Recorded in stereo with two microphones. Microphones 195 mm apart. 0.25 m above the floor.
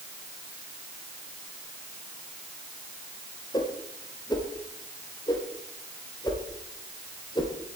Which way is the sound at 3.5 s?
20° left (ahead or behind).